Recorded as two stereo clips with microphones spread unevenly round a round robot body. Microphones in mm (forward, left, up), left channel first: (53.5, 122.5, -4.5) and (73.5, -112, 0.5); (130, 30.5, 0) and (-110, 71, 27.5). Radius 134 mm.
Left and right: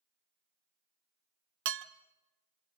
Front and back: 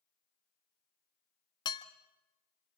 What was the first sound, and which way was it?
Dishes clattering, 75° right.